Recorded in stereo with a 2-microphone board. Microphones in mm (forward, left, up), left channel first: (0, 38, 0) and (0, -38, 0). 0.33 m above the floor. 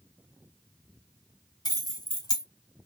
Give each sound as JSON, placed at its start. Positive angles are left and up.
{"t": 1.6, "sound": "keys jangling", "side_deg": 60, "distance_m": 1.0}